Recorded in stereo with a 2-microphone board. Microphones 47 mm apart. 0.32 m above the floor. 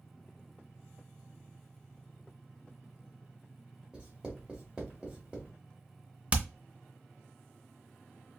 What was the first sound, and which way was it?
Writing, 20° right (ahead or behind).